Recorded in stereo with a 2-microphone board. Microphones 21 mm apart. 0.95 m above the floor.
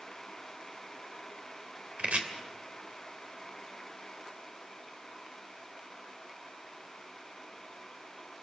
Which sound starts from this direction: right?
Chopping, at 2.0 s.